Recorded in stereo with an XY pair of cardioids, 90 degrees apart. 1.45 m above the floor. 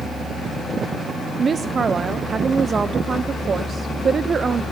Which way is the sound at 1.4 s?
45° right.